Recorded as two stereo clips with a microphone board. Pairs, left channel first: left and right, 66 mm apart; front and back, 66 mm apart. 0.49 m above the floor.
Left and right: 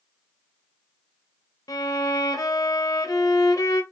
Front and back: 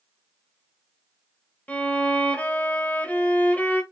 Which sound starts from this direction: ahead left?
A violin, at 1.7 s.